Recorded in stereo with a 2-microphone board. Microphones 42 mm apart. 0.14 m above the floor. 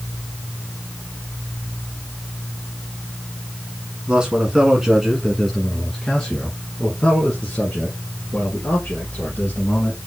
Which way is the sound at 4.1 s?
25° right (ahead or behind).